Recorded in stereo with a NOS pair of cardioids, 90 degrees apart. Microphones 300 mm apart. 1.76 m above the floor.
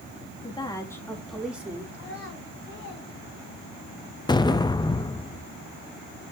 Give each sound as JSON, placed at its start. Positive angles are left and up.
{"t": 0.4, "sound": "a woman speaking", "azimuth_deg": 20, "distance_m": 3.0}
{"t": 1.9, "sound": "a child speaking", "azimuth_deg": 50, "distance_m": 5.5}
{"t": 4.3, "sound": "an explosion", "azimuth_deg": 15, "distance_m": 0.6}